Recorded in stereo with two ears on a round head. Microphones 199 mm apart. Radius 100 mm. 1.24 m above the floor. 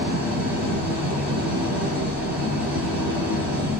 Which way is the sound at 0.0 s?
10° right (ahead or behind).